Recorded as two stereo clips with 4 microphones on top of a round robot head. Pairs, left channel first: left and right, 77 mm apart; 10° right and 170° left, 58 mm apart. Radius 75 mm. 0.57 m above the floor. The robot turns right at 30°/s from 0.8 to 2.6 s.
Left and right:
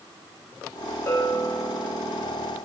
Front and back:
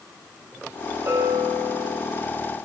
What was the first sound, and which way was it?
A bell, 140° left.